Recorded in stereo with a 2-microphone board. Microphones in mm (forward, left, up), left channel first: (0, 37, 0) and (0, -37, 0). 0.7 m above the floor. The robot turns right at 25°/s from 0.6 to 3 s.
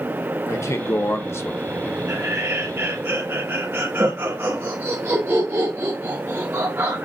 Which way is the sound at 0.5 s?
100° left.